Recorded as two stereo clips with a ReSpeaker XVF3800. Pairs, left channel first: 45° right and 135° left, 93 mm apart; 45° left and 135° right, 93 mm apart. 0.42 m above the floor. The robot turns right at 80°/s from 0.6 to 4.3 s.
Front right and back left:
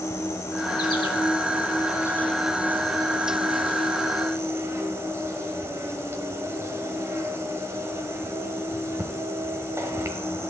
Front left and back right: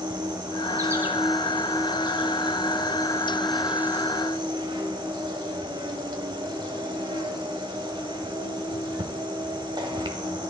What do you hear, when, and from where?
0.0 s an insect: 100° right, 1.1 m; by 10.5 s 165° right, 1.1 m